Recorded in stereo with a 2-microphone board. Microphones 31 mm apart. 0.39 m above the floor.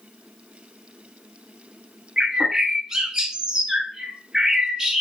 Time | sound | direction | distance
2.2 | a bird | 25° right (ahead or behind) | 0.5 m